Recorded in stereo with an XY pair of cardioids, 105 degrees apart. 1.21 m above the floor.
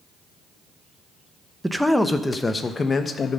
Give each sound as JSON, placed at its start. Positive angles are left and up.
{"t": 1.6, "sound": "a man speaking", "azimuth_deg": -5, "distance_m": 1.0}